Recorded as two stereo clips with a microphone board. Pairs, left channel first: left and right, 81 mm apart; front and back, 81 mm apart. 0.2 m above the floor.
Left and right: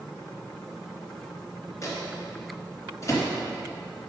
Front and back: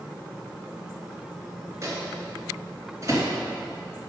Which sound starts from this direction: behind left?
A microwave, at 1.8 s.